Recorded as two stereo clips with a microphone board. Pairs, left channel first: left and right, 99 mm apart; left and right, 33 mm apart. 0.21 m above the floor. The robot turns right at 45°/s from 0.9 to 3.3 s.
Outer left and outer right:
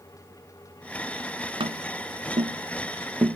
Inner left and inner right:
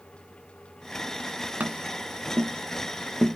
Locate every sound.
1.6 s tapping: 60° right (ahead or behind), 0.6 m; by 3.4 s 30° right (ahead or behind), 0.6 m